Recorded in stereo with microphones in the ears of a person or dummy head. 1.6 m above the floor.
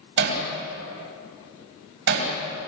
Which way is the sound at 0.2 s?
65° right (ahead or behind).